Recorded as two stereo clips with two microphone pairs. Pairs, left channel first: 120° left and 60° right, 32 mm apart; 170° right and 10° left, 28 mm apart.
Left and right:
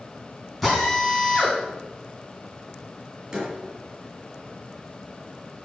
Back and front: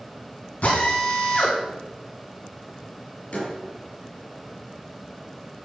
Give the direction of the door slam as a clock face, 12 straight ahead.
4 o'clock.